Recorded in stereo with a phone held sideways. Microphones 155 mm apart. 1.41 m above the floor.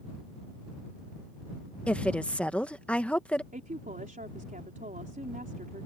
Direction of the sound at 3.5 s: 60° right (ahead or behind).